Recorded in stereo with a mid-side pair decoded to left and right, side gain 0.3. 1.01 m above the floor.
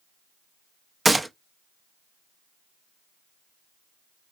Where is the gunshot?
30° right, 0.7 m.